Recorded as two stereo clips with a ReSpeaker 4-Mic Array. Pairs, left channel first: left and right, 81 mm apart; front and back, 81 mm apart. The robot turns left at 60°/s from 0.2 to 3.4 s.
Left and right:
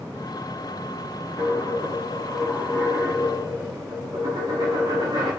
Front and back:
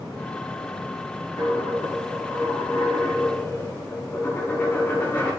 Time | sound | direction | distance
1.4 | a dropped coin | 60° left | 5.5 m